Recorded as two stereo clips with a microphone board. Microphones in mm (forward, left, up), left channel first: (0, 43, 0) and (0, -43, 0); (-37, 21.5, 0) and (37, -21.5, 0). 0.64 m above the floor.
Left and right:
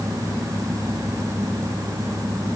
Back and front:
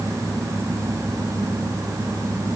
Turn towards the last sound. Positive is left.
No sound to turn to.